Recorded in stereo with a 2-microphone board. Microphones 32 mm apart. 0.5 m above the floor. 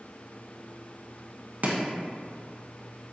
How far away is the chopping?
About 0.7 m.